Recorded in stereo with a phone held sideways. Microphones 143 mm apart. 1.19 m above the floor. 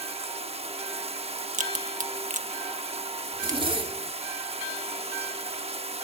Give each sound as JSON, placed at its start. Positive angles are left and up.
{"t": 0.0, "sound": "running water", "side_deg": -45, "distance_m": 0.9}
{"t": 1.5, "sound": "a crack", "side_deg": -60, "distance_m": 1.7}
{"t": 3.3, "sound": "a zipper", "side_deg": -40, "distance_m": 3.5}